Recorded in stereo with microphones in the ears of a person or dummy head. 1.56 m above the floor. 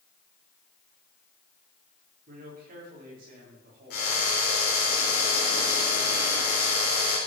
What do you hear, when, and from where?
2.3 s a man speaking: 45° right (ahead or behind), 4 m
3.9 s a drill: 50° left (ahead or behind), 4 m